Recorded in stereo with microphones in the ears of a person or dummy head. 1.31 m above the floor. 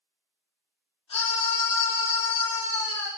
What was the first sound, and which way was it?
A scream, 25° left (ahead or behind).